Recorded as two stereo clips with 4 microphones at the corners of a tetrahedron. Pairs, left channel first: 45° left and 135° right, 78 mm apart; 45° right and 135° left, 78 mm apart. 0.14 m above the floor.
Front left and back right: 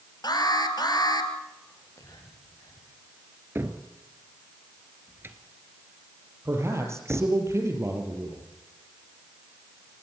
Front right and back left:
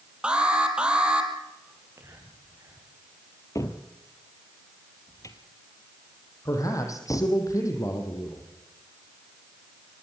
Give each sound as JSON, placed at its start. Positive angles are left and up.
{"t": 0.2, "sound": "an alarm", "azimuth_deg": 60, "distance_m": 3.5}
{"t": 1.7, "sound": "whispering", "azimuth_deg": 85, "distance_m": 8.0}
{"t": 3.5, "sound": "a cupboard door", "azimuth_deg": -80, "distance_m": 1.8}
{"t": 6.5, "sound": "a man speaking", "azimuth_deg": -85, "distance_m": 5.0}